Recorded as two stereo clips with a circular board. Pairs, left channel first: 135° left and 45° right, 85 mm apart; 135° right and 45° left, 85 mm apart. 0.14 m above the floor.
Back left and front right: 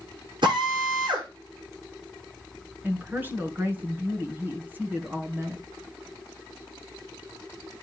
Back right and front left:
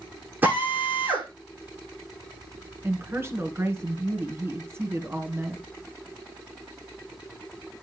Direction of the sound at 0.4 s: 20° right.